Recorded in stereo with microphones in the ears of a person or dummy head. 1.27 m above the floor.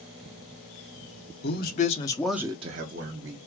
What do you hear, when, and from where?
1.4 s a man speaking: 55° left (ahead or behind), 0.9 m; by 3.4 s 55° right (ahead or behind), 1.1 m